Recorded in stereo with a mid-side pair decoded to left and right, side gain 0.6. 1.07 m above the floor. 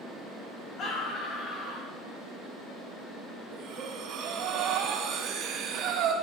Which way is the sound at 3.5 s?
65° right.